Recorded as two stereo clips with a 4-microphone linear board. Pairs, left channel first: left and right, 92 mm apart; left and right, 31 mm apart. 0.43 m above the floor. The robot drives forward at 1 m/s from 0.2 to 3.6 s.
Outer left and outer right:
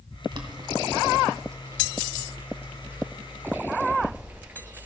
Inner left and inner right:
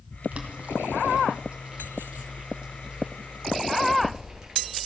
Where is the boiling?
55° right (ahead or behind), 2.0 m; by 4.9 s 20° right (ahead or behind), 4.5 m.